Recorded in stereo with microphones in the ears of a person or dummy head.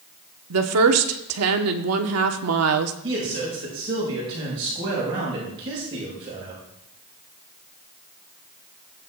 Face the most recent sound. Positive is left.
turn(degrees=-30)  # may be behind; listen again after turning